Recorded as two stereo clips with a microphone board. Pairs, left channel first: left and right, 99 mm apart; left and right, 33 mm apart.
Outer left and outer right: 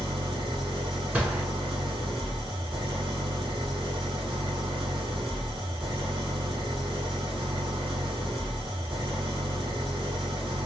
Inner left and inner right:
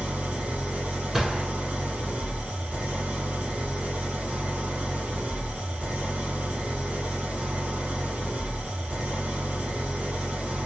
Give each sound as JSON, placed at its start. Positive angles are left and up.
{"t": 0.0, "sound": "an engine running", "side_deg": -60, "distance_m": 2.5}
{"t": 1.1, "sound": "a gunshot", "side_deg": -15, "distance_m": 1.6}